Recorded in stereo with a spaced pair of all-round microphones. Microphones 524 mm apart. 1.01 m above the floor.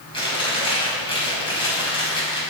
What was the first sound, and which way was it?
Chewing, 10° left (ahead or behind).